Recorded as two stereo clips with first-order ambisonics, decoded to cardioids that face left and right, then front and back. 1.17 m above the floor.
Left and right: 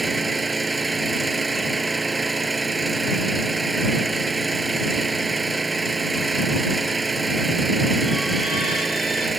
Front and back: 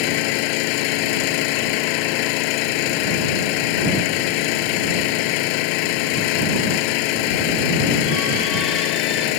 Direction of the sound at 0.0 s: 10° right.